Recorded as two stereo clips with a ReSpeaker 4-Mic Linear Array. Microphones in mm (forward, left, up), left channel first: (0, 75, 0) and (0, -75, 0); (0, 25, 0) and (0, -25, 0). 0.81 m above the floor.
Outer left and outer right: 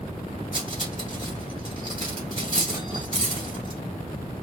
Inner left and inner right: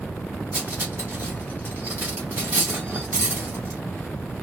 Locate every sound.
0.5 s cutlery clinking: 35° right (ahead or behind), 2.0 m